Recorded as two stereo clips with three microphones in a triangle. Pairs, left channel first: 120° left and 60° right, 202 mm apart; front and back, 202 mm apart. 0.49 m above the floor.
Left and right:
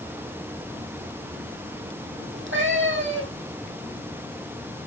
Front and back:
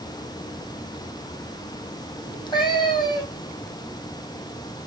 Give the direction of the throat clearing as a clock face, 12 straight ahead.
No throat clearing in this recording.